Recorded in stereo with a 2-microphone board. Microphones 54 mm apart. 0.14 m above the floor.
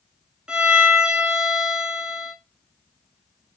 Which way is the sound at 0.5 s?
20° right (ahead or behind).